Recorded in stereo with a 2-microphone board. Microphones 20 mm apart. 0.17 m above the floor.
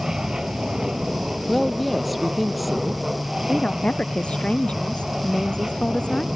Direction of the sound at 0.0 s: 30° right (ahead or behind).